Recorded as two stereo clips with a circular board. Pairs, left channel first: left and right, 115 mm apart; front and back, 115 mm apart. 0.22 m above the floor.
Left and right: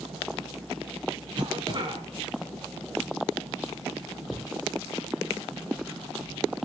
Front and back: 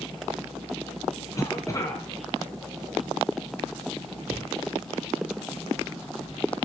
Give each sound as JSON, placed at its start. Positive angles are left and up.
{"t": 1.4, "sound": "a cough", "azimuth_deg": -55, "distance_m": 2.0}
{"t": 4.3, "sound": "a cupboard door", "azimuth_deg": -65, "distance_m": 6.0}